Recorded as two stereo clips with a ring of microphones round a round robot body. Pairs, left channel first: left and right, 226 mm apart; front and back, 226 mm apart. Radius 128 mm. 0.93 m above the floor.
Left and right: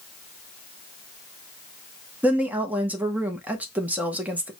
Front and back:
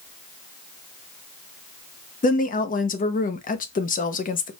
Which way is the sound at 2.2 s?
10° right.